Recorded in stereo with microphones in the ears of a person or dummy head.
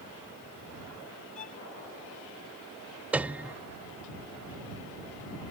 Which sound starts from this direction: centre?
A piano, at 3.1 s.